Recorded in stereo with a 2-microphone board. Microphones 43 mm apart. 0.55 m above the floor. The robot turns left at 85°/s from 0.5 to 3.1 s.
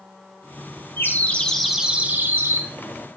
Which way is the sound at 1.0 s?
60° left.